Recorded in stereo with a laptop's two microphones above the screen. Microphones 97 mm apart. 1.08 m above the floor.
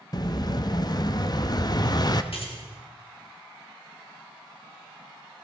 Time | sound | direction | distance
0.1 | an explosion | 45° left (ahead or behind) | 0.6 m
2.3 | keys jangling | 75° left (ahead or behind) | 1.5 m